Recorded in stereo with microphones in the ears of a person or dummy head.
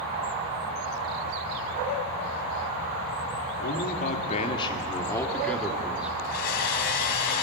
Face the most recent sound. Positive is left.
turn(degrees=55)  # may be behind; listen again after turning